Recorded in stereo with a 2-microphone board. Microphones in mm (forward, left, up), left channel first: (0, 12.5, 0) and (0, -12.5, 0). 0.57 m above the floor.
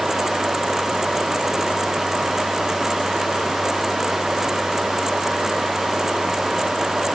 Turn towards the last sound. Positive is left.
No sound to turn to.